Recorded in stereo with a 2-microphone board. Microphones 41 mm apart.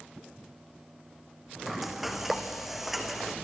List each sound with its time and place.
1.7 s frying: 5° right (ahead or behind), 1.9 m